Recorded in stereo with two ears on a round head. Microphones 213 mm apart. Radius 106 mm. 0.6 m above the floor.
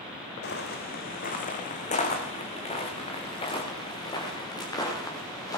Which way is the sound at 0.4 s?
50° left (ahead or behind).